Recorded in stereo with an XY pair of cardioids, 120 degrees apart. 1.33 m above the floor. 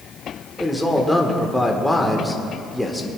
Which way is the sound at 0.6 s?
5° left.